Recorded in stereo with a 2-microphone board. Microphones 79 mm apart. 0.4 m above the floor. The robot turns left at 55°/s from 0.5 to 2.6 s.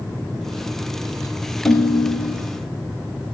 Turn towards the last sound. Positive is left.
turn(degrees=95)